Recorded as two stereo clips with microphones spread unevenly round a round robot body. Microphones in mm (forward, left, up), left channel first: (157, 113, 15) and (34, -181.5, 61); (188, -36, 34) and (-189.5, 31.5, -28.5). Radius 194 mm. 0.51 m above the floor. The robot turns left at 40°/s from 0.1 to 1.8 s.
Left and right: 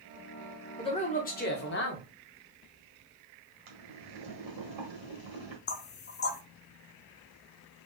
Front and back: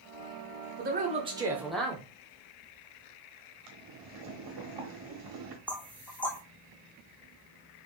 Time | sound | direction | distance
0.8 | a man speaking | 130° left | 1.0 m
3.7 | boiling | 155° right | 1.4 m
5.7 | knocking | 85° left | 0.5 m